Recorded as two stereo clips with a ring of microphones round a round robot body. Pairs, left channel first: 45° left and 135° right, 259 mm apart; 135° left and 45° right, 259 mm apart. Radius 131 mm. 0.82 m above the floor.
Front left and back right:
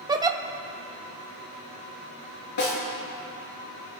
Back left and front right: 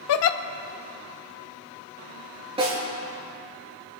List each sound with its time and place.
0.1 s a giggle: 150° left, 0.5 m
2.6 s a snare drum: 25° left, 4 m